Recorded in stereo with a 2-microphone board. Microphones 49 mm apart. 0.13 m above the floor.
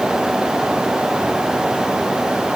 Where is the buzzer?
No buzzer in this recording.